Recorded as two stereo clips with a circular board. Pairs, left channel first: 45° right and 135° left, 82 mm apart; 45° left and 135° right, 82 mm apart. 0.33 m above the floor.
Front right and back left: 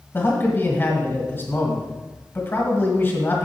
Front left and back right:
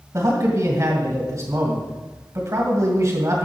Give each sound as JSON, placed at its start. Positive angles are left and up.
{"t": 0.1, "sound": "a man speaking", "azimuth_deg": -100, "distance_m": 2.0}